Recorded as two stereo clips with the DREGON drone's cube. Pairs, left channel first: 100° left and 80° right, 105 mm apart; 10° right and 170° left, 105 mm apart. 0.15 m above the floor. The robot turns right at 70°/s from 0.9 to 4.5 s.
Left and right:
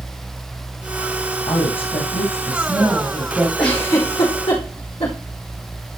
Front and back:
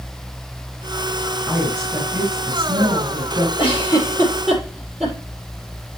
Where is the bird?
I don't hear a bird.